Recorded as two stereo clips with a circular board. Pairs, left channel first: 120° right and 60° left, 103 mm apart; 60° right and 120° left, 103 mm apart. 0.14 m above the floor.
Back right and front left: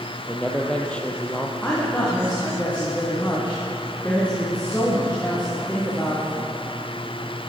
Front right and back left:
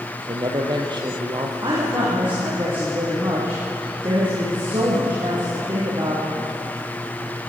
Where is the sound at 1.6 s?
165° left, 8.5 m.